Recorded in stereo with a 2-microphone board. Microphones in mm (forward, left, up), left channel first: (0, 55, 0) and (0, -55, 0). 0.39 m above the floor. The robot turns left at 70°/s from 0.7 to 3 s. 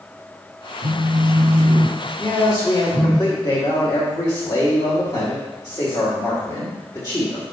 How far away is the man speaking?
About 1.8 m.